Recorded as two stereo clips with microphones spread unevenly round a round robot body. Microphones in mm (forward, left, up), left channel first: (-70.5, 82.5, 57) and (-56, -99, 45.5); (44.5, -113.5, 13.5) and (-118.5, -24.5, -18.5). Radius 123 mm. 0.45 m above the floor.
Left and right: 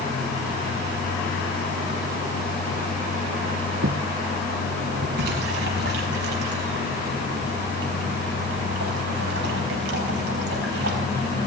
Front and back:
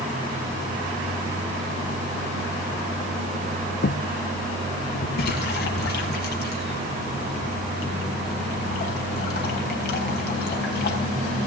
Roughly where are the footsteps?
Ahead right.